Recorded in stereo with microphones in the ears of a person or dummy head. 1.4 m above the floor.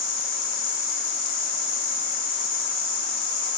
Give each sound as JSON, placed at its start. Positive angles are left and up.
{"t": 0.0, "sound": "an insect", "side_deg": 45, "distance_m": 0.8}